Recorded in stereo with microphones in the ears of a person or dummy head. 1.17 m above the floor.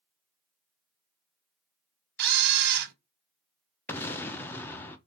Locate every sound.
2.2 s a camera shutter: 65° right (ahead or behind), 0.7 m
3.9 s an explosion: 15° left (ahead or behind), 0.5 m